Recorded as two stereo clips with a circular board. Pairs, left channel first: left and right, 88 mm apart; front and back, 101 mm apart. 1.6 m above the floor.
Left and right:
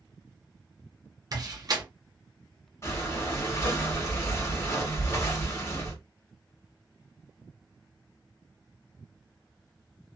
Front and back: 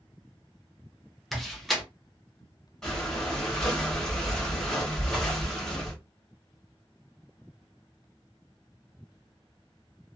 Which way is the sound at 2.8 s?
80° left.